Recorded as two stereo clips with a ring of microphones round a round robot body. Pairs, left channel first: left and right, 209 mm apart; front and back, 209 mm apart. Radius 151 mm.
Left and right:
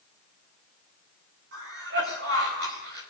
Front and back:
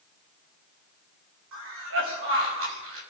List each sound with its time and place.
1.5 s a cough: 145° right, 5 m